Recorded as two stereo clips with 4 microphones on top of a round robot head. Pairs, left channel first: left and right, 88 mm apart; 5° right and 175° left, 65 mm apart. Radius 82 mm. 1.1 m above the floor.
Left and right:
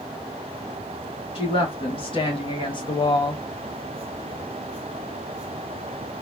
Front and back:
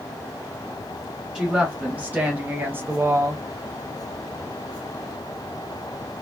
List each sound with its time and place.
1.4 s a woman speaking: 100° left, 1.7 m; by 3.4 s 130° left, 0.8 m